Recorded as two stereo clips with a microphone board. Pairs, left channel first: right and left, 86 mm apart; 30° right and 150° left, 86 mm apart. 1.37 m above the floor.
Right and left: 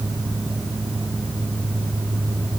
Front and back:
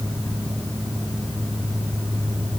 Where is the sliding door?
I don't hear a sliding door.